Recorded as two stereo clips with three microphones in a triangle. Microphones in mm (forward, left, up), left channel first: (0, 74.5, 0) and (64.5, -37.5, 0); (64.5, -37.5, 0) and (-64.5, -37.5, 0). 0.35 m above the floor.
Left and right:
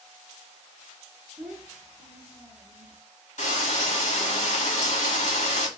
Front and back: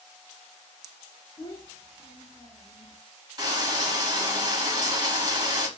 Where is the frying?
130° left, 1.1 m.